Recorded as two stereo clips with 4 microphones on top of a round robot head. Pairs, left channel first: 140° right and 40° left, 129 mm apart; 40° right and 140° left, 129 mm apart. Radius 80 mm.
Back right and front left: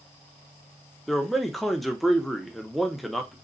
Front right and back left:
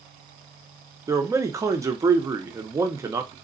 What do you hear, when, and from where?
1.1 s a man speaking: 130° left, 0.7 m